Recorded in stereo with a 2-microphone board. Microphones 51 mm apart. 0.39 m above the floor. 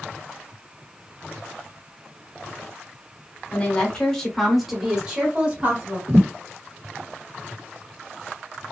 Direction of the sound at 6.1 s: 60° right (ahead or behind).